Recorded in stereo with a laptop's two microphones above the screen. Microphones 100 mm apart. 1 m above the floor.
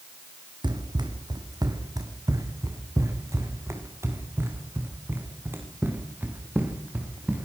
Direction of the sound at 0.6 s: 50° right (ahead or behind).